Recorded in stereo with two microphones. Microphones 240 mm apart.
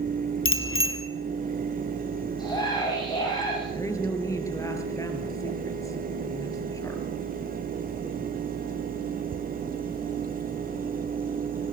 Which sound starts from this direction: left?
A bicycle bell, at 0.5 s.